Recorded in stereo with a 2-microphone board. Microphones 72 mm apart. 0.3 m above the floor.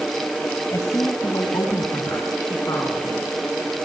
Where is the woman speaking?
50° left (ahead or behind), 1.7 m; by 3.3 s 55° left (ahead or behind), 4.5 m.